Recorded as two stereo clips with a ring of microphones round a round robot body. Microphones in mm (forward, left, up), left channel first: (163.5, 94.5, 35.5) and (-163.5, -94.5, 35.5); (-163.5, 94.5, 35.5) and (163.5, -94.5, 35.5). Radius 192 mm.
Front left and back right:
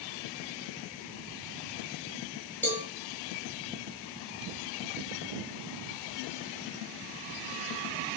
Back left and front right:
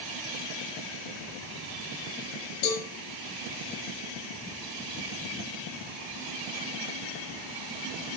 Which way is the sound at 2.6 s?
115° left.